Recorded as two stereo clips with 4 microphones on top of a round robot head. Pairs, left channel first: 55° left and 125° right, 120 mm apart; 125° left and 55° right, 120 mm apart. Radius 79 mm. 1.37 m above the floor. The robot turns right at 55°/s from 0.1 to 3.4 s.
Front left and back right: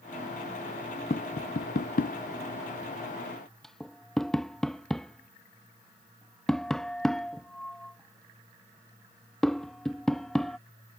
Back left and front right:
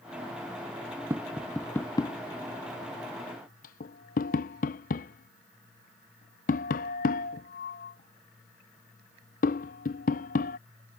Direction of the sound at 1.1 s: 15° left.